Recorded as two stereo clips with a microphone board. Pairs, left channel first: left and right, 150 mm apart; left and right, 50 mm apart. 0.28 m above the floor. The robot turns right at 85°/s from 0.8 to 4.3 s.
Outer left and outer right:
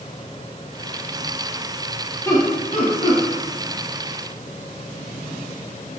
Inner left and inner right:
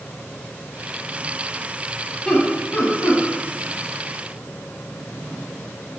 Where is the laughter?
15° left (ahead or behind), 1.6 m; by 3.2 s 55° left (ahead or behind), 1.6 m.